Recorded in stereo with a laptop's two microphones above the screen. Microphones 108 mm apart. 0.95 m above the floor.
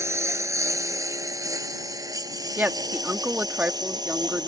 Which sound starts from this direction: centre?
A woman speaking, at 2.6 s.